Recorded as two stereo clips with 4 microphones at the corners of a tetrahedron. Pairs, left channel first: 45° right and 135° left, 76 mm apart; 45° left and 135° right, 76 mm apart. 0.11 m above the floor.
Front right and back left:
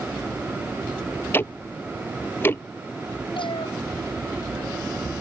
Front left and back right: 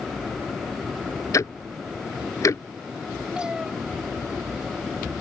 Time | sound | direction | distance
1.3 | ticking | 10° left | ?
3.4 | a cat meowing | 55° right | ?